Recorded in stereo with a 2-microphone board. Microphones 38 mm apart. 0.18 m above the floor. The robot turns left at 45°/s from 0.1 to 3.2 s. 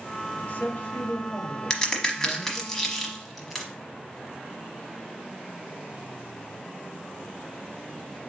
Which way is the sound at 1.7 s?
20° left (ahead or behind).